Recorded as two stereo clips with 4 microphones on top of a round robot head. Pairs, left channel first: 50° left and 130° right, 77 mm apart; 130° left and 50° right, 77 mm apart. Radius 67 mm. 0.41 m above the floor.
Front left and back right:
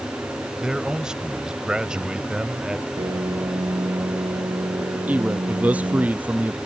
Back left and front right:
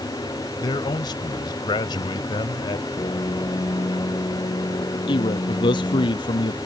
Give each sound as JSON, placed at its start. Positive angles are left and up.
{"t": 0.6, "sound": "a man speaking", "azimuth_deg": 150}
{"t": 3.0, "sound": "a piano", "azimuth_deg": -175}
{"t": 5.1, "sound": "a man speaking", "azimuth_deg": 155}